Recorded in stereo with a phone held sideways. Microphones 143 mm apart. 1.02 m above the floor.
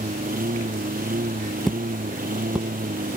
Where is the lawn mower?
85° right.